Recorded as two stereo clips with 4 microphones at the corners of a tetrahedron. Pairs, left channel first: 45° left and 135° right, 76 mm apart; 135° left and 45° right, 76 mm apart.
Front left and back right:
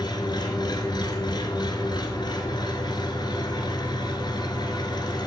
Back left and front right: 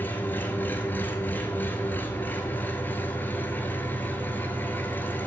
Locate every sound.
0.0 s an engine running: 70° left, 1.4 m